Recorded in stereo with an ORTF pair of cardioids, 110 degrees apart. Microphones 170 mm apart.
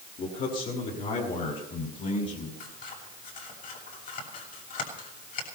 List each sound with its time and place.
0.2 s a man speaking: 55° left, 7 m; by 2.5 s 45° left, 6 m
2.6 s scissors: 55° left, 7.5 m